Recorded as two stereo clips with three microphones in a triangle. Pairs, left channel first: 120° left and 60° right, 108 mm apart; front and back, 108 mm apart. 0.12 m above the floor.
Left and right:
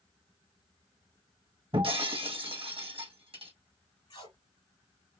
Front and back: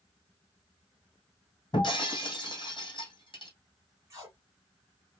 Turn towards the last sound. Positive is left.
turn(degrees=125)